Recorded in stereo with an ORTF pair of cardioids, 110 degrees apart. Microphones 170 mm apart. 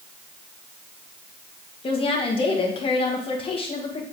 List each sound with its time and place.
1.8 s a woman speaking: 35° left, 1.8 m